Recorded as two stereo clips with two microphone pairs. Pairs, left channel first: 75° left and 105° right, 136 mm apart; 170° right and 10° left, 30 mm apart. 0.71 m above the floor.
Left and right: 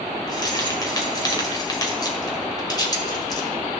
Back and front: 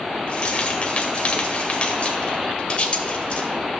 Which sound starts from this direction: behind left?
Keys jangling, at 0.3 s.